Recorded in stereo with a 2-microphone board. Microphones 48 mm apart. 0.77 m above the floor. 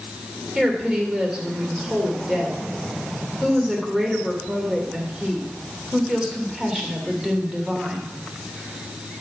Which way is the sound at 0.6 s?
15° right (ahead or behind).